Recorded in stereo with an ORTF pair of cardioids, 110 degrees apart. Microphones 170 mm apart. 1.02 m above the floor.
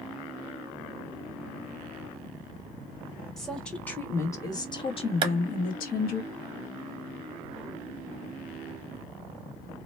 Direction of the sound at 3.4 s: Straight ahead.